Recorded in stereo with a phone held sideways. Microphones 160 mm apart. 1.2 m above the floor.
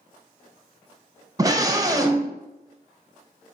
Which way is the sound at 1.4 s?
20° right (ahead or behind).